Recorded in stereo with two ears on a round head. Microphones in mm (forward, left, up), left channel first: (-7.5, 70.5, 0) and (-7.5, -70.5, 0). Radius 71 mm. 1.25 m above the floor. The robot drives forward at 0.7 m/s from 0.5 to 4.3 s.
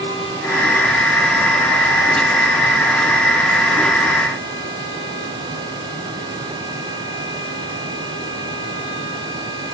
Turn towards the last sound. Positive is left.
No sound to turn to.